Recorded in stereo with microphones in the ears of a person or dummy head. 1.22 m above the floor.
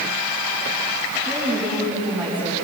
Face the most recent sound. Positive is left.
turn(degrees=-15)  # may be behind; listen again after turning